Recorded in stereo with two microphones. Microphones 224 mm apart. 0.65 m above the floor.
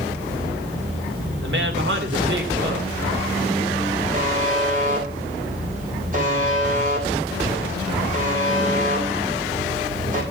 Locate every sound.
1.4 s a woman speaking: 55° right (ahead or behind), 1.9 m
4.1 s a buzzer: 35° right (ahead or behind), 3.5 m